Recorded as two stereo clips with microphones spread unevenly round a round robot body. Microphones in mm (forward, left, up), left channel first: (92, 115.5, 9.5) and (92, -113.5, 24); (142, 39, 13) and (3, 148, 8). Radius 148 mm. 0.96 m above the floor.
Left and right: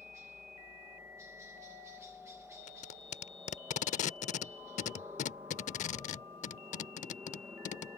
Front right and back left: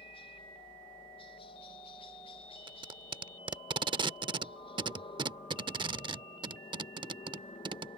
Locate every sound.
0.0 s a helicopter: 20° right
2.7 s tape being pulled: 110° left